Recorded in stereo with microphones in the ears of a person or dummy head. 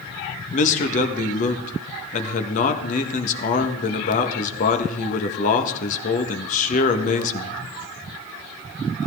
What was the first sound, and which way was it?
A man speaking, 45° left (ahead or behind).